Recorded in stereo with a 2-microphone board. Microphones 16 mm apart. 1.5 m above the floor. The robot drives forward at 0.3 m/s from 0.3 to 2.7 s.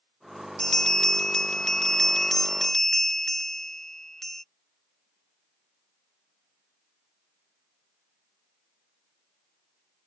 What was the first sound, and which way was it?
A bell, 40° left (ahead or behind).